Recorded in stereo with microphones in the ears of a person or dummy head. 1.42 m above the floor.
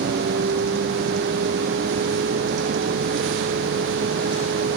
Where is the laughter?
I don't hear laughter.